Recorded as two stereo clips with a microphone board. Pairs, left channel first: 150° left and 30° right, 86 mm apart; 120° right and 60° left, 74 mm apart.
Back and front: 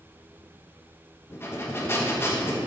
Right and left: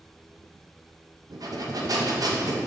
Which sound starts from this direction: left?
Breathing, at 1.3 s.